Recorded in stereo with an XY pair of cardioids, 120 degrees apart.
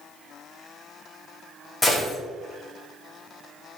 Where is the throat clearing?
I don't hear throat clearing.